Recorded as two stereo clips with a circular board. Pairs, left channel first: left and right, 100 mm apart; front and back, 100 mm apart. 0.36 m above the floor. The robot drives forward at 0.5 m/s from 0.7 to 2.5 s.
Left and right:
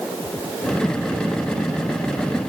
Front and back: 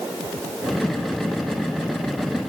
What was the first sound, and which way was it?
Only background noise.